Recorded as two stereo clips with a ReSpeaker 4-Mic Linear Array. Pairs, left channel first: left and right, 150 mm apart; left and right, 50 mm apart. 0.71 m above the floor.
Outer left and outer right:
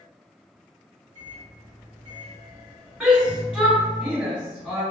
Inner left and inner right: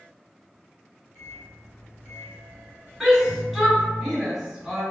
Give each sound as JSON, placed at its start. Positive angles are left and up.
{"t": 1.1, "sound": "a microwave", "side_deg": 40, "distance_m": 1.0}
{"t": 3.0, "sound": "a shout", "side_deg": -5, "distance_m": 1.4}